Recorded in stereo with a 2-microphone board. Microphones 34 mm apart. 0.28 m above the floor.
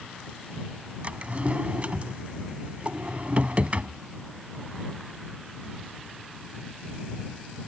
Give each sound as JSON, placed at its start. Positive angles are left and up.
{"t": 1.0, "sound": "a drawer", "side_deg": -45}